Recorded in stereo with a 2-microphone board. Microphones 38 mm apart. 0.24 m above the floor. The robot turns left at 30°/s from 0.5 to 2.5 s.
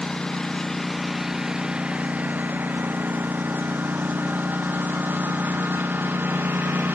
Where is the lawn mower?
15° left (ahead or behind); by 6.9 s 60° right (ahead or behind).